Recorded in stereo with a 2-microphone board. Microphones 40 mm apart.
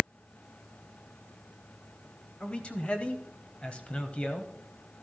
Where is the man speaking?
25° left (ahead or behind), 1.0 m.